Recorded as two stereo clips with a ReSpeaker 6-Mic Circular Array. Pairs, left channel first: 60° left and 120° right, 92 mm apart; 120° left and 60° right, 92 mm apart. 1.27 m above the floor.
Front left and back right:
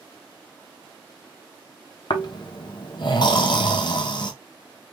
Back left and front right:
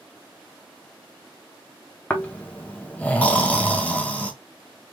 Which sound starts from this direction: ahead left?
Snoring, at 2.1 s.